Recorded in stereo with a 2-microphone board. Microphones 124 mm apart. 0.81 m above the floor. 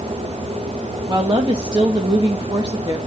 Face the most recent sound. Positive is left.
turn(degrees=-35)  # may be behind; listen again after turning